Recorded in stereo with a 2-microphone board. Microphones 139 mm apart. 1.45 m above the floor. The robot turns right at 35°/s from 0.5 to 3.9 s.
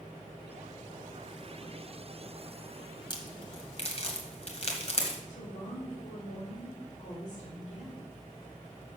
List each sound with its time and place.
3.1 s a crack: 35° left (ahead or behind), 1.7 m; by 5.2 s 45° left (ahead or behind), 1.7 m
5.3 s a woman speaking: 60° left (ahead or behind), 3.5 m